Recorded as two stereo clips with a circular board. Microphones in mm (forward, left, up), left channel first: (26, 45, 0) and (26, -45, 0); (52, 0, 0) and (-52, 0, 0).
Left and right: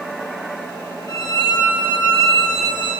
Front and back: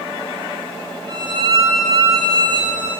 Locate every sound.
1.1 s a violin: 135° left, 2 m